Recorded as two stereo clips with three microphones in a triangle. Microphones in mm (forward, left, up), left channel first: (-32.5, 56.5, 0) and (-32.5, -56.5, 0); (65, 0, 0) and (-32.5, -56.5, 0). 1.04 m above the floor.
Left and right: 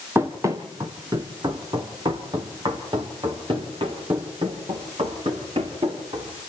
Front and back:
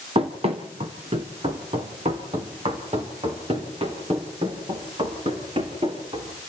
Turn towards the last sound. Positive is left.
turn(degrees=-125)